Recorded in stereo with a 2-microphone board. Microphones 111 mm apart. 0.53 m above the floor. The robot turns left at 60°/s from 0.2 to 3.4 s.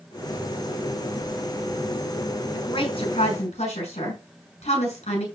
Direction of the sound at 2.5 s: 40° left (ahead or behind).